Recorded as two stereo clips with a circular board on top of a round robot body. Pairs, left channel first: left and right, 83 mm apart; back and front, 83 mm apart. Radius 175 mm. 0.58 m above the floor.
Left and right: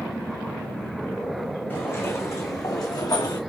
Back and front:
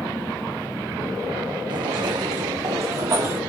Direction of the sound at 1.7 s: 30° left.